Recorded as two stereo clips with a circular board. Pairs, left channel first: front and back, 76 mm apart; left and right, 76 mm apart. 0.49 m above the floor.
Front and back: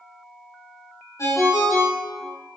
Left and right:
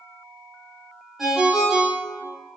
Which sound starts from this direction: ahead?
A ringtone, at 1.2 s.